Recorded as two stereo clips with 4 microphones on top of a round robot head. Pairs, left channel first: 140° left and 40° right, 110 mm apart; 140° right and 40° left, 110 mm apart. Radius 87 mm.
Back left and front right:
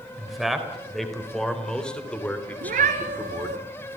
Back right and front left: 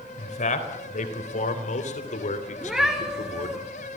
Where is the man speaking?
125° right, 4 m; by 3.6 s 150° right, 3 m.